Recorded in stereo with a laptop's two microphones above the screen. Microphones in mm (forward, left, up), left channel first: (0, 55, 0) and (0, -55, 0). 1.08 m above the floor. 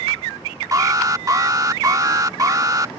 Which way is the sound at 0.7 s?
30° right (ahead or behind).